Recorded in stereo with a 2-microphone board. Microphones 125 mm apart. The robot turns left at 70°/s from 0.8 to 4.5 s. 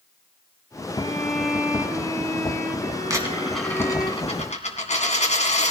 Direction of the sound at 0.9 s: 40° left.